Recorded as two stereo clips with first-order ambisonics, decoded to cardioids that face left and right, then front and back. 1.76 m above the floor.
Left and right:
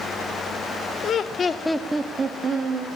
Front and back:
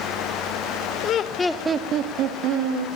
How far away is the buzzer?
No buzzer in this recording.